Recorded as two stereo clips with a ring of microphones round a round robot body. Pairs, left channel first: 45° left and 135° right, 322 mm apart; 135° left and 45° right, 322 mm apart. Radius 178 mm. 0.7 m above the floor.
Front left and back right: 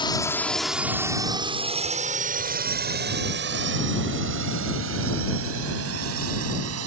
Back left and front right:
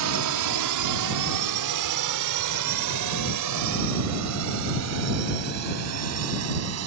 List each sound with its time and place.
0.0 s a drone: 30° right; by 6.9 s 90° right